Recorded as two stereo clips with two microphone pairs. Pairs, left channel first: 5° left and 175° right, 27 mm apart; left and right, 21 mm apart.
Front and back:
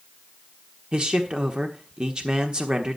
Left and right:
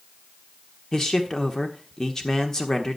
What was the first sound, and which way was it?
A man speaking, 140° left.